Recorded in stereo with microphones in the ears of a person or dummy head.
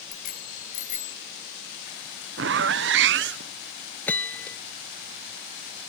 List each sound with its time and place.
0.1 s a bicycle bell: 50° left (ahead or behind); by 1.2 s 35° left (ahead or behind)
2.4 s a zipper: 55° right (ahead or behind)
4.1 s a bell: 10° left (ahead or behind)